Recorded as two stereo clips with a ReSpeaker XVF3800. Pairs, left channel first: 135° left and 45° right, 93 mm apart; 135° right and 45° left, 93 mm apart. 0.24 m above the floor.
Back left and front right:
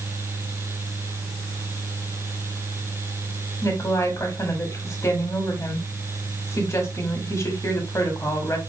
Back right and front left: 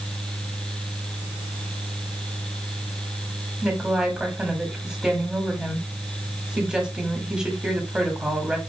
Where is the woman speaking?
120° left, 1.6 m.